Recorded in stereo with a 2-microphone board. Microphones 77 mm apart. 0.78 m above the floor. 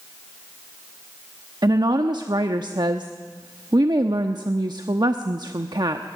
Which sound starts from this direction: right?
A woman speaking, at 1.6 s.